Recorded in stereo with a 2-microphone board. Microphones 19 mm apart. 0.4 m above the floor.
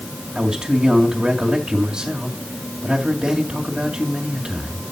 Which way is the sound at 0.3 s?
50° right (ahead or behind).